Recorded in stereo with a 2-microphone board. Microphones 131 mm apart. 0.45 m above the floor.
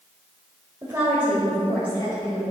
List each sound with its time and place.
0.8 s a woman speaking: 25° right (ahead or behind), 1.8 m; by 2.4 s 35° left (ahead or behind), 2.5 m